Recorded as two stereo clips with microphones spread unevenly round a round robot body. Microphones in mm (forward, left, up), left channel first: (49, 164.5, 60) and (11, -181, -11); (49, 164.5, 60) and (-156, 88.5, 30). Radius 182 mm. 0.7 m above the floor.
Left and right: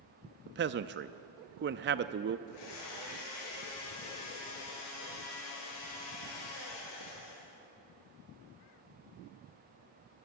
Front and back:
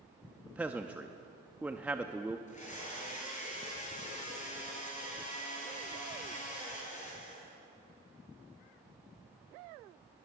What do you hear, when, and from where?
0.5 s a man speaking: 85° right, 0.5 m
2.5 s a blender: 75° left, 9 m